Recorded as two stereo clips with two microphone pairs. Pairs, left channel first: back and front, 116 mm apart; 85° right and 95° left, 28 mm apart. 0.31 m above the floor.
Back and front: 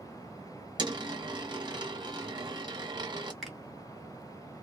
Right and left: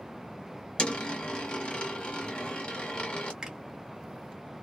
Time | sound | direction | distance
0.8 | a dropped coin | 45° right | 1.0 m
3.4 | a finger snap | 90° left | 1.2 m